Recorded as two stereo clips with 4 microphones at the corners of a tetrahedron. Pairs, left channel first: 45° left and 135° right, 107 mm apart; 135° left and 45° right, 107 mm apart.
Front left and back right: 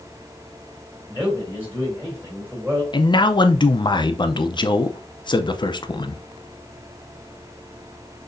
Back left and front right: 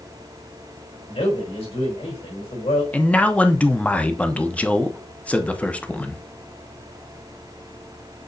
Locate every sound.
1.1 s a man speaking: 150° left, 4 m
2.9 s a man speaking: 65° left, 0.5 m